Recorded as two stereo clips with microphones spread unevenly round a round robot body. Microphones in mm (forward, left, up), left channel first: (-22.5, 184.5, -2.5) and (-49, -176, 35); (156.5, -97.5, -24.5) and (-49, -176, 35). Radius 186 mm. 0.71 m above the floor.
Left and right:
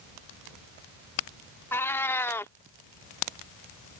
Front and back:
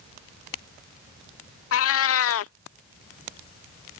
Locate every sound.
1.7 s a cat meowing: straight ahead